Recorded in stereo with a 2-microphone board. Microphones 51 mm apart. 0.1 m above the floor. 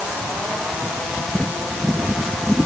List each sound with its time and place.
Only background noise.